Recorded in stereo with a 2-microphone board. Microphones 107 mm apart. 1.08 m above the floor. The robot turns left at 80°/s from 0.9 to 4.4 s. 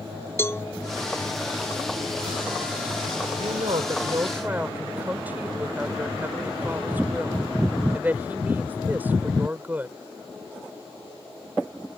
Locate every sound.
0.4 s a cowbell: 25° left (ahead or behind)
3.4 s a woman speaking: 80° right; by 10.0 s 165° right